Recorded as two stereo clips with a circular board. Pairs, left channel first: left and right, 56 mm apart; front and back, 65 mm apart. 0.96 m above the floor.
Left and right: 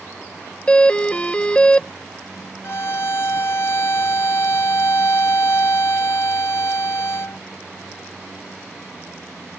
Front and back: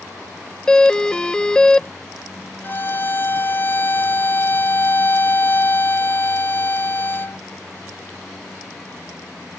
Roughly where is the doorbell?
Ahead left.